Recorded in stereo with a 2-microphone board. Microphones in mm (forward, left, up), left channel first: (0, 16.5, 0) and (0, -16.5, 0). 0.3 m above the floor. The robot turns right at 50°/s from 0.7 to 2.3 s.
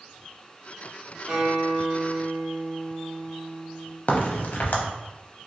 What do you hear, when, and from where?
1.3 s a guitar: 150° right, 1.8 m; by 4.0 s 100° right, 1.8 m
4.1 s a crack: 55° left (ahead or behind), 0.6 m